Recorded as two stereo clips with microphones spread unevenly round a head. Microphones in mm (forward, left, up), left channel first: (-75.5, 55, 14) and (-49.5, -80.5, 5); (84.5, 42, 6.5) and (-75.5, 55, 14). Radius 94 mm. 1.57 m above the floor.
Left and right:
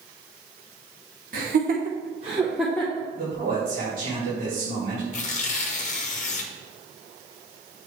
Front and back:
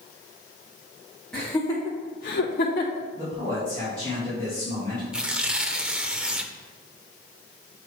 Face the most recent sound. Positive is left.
turn(degrees=95)